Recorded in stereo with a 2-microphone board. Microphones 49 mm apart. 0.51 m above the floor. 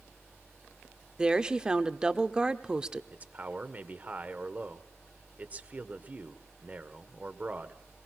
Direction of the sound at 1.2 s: 20° right (ahead or behind).